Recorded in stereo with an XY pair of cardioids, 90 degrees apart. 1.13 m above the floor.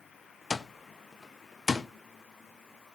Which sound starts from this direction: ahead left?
An alarm clock, at 0.5 s.